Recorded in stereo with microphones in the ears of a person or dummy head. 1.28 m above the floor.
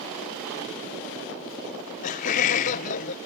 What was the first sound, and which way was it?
Laughter, 40° left (ahead or behind).